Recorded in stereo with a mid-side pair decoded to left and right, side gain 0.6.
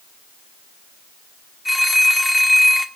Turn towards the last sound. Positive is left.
turn(degrees=5)